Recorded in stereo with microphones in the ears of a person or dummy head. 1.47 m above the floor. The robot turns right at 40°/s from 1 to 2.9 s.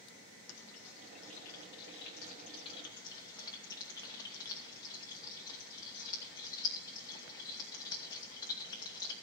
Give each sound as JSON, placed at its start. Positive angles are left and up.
{"t": 0.5, "sound": "frying", "side_deg": 85, "distance_m": 2.0}